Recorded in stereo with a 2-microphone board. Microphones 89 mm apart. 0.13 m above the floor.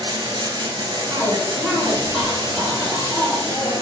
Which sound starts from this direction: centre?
A cough, at 1.1 s.